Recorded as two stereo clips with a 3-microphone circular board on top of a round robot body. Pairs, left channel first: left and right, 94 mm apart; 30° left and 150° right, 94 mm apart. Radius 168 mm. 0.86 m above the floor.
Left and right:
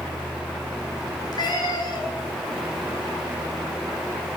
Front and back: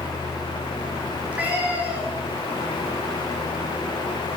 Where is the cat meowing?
135° left, 8.5 m.